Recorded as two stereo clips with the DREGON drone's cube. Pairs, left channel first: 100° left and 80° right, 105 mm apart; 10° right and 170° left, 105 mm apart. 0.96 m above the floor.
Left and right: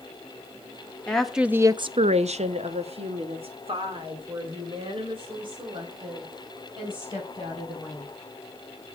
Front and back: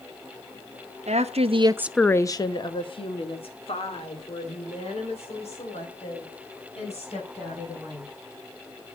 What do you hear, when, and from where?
1.1 s a woman speaking: straight behind, 0.9 m; by 8.1 s 35° right, 6.5 m